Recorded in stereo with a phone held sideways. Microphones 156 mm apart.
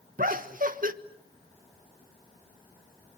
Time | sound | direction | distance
0.2 | laughter | 60° right (ahead or behind) | 1.4 m